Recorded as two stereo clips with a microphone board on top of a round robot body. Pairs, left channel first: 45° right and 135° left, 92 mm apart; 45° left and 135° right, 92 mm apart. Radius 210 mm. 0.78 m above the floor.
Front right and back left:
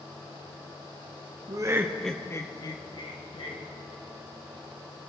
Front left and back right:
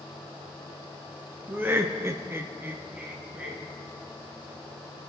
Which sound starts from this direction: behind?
Laughter, at 1.5 s.